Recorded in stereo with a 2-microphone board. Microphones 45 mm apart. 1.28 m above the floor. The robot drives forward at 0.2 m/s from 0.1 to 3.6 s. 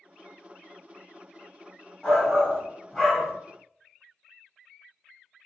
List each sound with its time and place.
2.0 s a shout: 15° left (ahead or behind), 1.6 m